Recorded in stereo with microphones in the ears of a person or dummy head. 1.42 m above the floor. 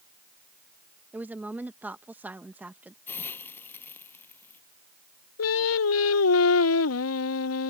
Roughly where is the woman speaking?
Centre.